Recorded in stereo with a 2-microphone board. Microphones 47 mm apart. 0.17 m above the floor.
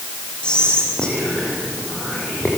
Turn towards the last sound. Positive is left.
turn(degrees=20)  # may be behind; listen again after turning